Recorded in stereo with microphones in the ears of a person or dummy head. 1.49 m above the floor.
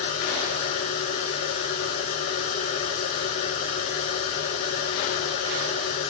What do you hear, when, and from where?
0.0 s a machine running: 45° left (ahead or behind), 2.5 m